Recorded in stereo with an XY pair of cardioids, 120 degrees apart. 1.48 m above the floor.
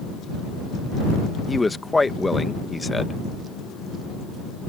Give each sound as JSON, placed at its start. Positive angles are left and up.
{"t": 1.5, "sound": "a man speaking", "azimuth_deg": 10}